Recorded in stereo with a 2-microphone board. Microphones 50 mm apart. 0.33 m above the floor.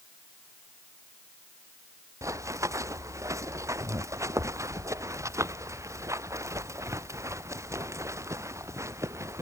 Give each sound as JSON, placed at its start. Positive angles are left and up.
{"t": 2.2, "sound": "running footsteps", "side_deg": -80}